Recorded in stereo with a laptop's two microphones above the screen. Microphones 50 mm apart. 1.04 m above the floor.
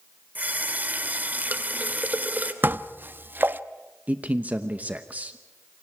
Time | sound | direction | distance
0.3 | a running tap | 30° right (ahead or behind) | 2.5 m
2.6 | dishes clattering | 40° right (ahead or behind) | 0.9 m
4.1 | a man speaking | 35° right (ahead or behind) | 0.9 m